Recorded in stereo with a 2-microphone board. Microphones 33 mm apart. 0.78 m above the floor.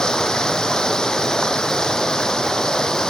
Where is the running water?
20° left (ahead or behind).